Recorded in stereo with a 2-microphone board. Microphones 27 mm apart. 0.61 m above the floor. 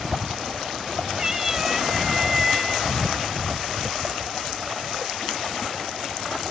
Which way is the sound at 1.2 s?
20° right (ahead or behind).